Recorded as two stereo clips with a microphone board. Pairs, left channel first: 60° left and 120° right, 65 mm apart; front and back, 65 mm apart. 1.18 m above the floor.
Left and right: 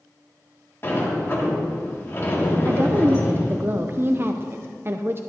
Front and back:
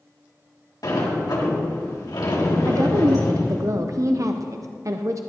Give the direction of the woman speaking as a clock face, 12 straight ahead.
6 o'clock.